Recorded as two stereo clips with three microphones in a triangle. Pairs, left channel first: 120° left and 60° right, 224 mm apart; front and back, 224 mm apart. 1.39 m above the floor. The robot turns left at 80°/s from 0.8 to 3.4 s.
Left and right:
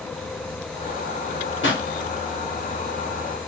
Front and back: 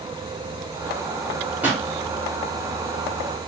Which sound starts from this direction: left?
A pop, at 1.6 s.